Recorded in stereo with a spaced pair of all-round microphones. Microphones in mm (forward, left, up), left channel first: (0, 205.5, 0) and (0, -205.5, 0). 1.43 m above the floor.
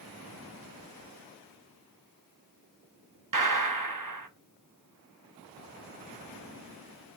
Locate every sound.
3.3 s a gunshot: 50° right (ahead or behind), 0.6 m